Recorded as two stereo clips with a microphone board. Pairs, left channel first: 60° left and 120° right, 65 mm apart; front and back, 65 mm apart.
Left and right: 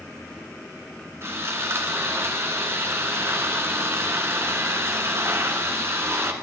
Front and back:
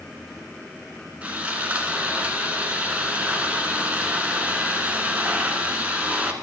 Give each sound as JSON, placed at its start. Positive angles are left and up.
{"t": 1.2, "sound": "sawing", "azimuth_deg": -125, "distance_m": 2.0}